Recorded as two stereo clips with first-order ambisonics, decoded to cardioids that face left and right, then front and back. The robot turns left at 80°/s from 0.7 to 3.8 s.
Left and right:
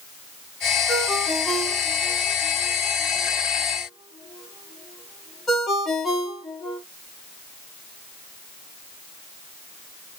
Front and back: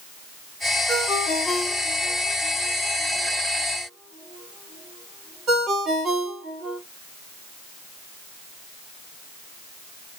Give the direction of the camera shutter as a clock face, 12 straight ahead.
I don't hear a camera shutter.